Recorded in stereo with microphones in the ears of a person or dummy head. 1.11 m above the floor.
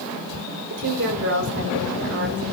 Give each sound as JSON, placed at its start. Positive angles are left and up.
{"t": 0.7, "sound": "a woman speaking", "side_deg": -65, "distance_m": 4.0}